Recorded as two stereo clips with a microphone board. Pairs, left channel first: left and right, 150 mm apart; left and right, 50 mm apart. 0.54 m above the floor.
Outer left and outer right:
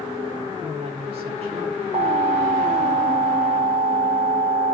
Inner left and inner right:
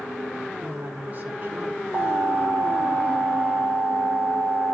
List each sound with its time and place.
0.6 s a woman speaking: 40° right (ahead or behind), 1.5 m
1.9 s an alarm: 45° right (ahead or behind), 1.4 m